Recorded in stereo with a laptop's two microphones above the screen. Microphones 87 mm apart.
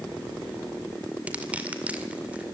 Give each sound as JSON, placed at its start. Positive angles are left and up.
{"t": 1.3, "sound": "crushing", "side_deg": -15, "distance_m": 2.0}